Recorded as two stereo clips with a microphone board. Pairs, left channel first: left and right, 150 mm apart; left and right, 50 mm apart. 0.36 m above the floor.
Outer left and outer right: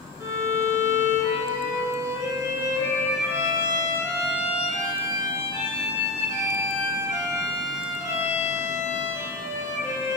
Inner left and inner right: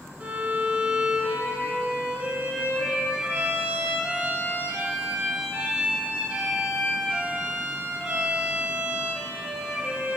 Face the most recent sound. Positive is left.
turn(degrees=-20)  # may be behind; listen again after turning